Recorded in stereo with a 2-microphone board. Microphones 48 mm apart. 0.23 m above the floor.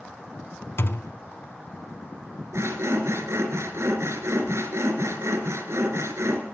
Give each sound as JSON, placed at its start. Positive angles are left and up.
{"t": 0.8, "sound": "a thud", "side_deg": 55, "distance_m": 0.8}
{"t": 2.5, "sound": "sawing", "side_deg": -70, "distance_m": 3.0}